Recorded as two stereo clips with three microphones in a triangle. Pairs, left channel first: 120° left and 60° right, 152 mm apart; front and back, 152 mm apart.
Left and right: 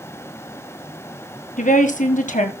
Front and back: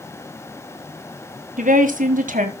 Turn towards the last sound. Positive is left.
turn(degrees=150)